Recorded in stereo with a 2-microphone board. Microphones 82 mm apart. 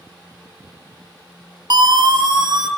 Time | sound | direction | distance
1.7 | a siren | 55° right (ahead or behind) | 3.5 m